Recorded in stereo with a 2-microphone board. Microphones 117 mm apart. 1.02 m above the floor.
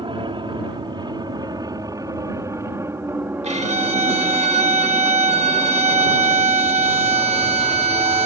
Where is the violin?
75° right (ahead or behind).